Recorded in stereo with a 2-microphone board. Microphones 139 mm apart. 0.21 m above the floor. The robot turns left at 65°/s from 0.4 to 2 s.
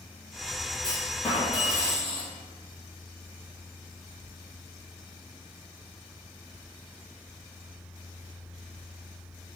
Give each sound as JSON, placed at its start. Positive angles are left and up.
{"t": 0.8, "sound": "a clunk", "azimuth_deg": 35, "distance_m": 1.0}